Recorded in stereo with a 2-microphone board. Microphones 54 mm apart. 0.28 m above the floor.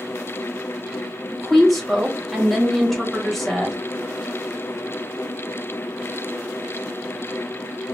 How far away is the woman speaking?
About 1.2 m.